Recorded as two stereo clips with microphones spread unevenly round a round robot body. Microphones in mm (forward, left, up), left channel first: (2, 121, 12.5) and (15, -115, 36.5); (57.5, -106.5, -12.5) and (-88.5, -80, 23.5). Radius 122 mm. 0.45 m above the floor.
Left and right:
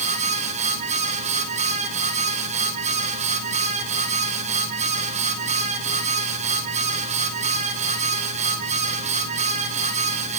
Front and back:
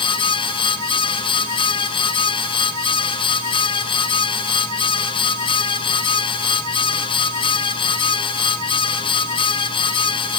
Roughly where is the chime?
I don't hear a chime.